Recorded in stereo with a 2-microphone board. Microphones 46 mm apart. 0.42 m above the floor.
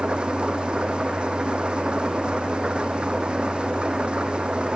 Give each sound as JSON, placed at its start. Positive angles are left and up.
{"t": 0.0, "sound": "an engine running", "side_deg": -20}